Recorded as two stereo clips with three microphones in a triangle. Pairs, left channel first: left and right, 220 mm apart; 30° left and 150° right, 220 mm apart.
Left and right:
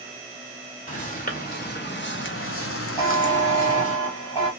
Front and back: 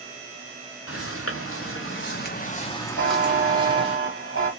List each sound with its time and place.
0.9 s footsteps: 35° left, 1.1 m; by 4.0 s 150° left, 0.8 m
3.0 s a buzzer: 25° left, 1.4 m